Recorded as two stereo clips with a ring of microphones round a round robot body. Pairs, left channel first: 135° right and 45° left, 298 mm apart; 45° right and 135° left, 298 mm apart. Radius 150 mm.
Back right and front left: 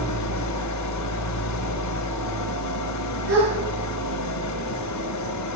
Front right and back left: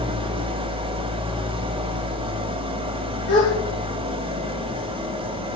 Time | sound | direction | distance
0.0 | an engine running | 155° right | 1.6 m
3.3 | a gasp | 5° right | 7 m